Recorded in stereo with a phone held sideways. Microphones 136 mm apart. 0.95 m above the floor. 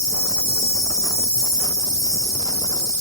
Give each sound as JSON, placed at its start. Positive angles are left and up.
{"t": 0.0, "sound": "an insect", "side_deg": 20, "distance_m": 0.9}